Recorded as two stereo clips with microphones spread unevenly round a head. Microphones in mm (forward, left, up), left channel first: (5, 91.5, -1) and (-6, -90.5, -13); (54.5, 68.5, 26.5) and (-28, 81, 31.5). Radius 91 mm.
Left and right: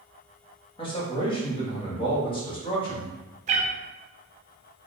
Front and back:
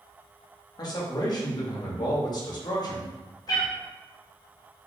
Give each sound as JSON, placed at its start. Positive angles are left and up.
{"t": 0.8, "sound": "a man speaking", "azimuth_deg": 25, "distance_m": 1.5}
{"t": 3.5, "sound": "a cat meowing", "azimuth_deg": -55, "distance_m": 0.6}